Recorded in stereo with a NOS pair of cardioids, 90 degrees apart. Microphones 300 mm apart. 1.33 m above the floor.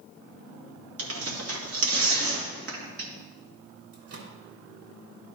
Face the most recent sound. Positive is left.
turn(degrees=-50)